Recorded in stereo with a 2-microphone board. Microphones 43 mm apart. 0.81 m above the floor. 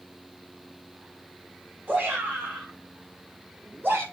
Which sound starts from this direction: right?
A shout, at 1.9 s.